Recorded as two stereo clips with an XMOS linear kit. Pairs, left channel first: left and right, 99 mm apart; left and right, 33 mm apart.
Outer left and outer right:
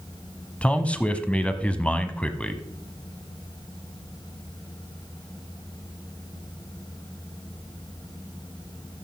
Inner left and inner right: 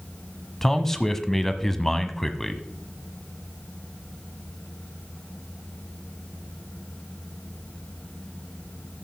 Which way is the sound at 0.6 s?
10° left (ahead or behind).